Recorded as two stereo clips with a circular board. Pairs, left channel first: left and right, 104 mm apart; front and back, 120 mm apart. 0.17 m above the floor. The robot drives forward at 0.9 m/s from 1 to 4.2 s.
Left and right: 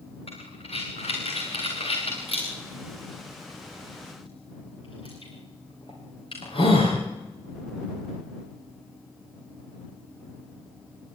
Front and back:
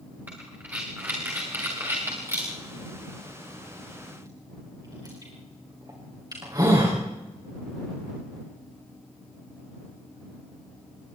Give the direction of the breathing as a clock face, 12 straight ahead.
9 o'clock.